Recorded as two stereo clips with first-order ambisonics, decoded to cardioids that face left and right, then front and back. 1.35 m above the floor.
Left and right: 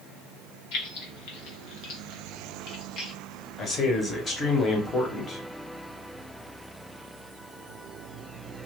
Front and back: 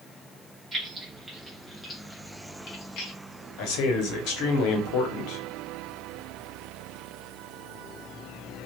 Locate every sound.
0.7 s keys jangling: 105° left, 1.1 m; by 3.1 s 30° left, 1.0 m
3.6 s a man speaking: 20° left, 0.9 m